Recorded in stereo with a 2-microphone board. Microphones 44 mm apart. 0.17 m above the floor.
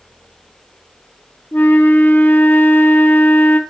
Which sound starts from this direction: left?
A flute, at 1.5 s.